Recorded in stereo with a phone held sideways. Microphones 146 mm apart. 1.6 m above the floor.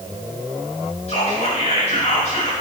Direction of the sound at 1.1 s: 45° left (ahead or behind).